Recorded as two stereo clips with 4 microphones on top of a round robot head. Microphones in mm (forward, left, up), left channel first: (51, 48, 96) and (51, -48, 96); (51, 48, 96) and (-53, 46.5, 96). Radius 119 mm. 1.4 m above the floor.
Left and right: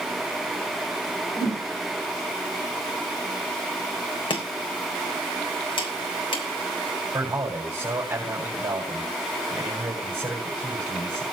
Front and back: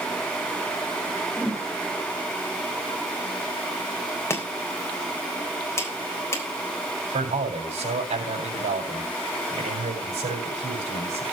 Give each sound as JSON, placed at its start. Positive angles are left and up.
{"t": 1.4, "sound": "a whoosh", "azimuth_deg": 90, "distance_m": 8.0}
{"t": 4.3, "sound": "chopping", "azimuth_deg": 65, "distance_m": 4.0}
{"t": 7.1, "sound": "a man speaking", "azimuth_deg": -155, "distance_m": 5.5}